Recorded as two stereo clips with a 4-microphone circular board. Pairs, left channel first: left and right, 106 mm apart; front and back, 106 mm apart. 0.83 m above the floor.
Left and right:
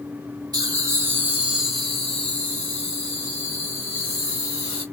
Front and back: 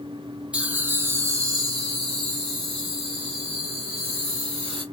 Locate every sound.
0.5 s laughter: 110° right, 0.9 m; by 4.8 s 145° left, 2 m